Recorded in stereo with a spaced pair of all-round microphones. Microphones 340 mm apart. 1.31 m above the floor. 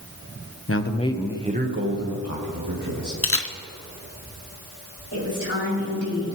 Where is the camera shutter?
40° left (ahead or behind), 0.7 m.